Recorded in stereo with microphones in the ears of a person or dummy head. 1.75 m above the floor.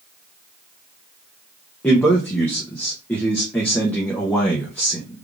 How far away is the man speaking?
About 0.5 m.